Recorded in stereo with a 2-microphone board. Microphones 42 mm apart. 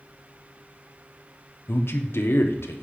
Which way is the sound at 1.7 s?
70° left (ahead or behind).